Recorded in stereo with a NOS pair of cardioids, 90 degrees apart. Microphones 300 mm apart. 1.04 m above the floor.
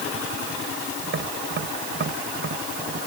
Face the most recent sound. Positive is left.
turn(degrees=-40)